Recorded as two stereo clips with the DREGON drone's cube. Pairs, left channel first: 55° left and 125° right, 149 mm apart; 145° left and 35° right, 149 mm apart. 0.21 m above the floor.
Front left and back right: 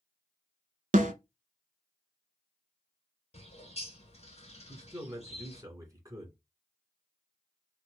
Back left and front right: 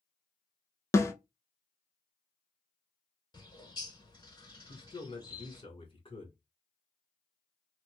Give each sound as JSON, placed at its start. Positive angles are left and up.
{"t": 0.9, "sound": "a snare drum", "azimuth_deg": -145, "distance_m": 0.5}
{"t": 3.3, "sound": "a bird", "azimuth_deg": 90, "distance_m": 0.9}
{"t": 4.7, "sound": "a man speaking", "azimuth_deg": 180, "distance_m": 1.4}